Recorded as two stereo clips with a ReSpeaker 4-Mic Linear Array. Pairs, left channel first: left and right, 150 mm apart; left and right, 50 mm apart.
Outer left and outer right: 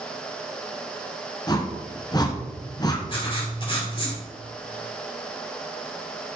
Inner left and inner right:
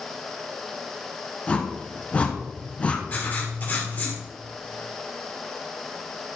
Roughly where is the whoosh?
Left.